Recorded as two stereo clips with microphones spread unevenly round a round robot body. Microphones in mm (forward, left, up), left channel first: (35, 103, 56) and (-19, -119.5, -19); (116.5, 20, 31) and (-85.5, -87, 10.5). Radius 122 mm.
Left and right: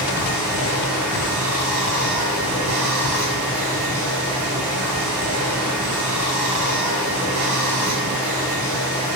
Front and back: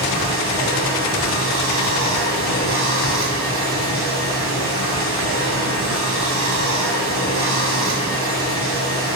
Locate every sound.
0.0 s running water: 120° right, 5 m